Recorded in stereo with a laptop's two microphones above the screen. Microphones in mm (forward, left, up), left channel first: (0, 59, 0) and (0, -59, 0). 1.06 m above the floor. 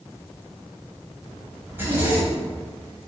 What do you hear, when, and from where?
1.7 s a zipper: 15° right (ahead or behind), 7.5 m